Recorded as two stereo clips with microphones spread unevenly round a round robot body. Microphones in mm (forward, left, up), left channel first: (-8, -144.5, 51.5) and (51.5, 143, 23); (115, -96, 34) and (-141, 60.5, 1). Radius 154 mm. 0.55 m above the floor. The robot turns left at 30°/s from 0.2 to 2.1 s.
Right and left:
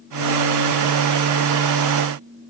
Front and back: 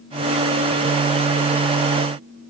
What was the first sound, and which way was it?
Only background noise.